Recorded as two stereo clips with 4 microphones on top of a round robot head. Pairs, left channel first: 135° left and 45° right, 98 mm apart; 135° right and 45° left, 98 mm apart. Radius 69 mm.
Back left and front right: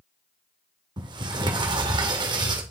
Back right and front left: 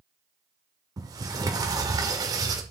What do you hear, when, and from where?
1.0 s a sliding door: 5° right, 1.7 m